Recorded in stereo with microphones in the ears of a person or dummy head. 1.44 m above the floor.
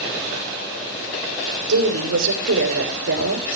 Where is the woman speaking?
80° right, 6 m.